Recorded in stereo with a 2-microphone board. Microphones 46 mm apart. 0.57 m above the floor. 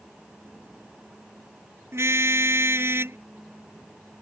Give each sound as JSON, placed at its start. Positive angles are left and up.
{"t": 1.9, "sound": "a car horn", "side_deg": -70}